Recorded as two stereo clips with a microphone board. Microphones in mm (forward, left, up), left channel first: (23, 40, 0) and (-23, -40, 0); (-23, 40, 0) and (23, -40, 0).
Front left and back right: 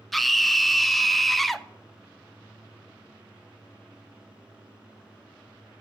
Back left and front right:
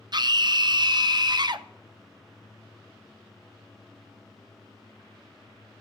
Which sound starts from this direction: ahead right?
A scream, at 0.1 s.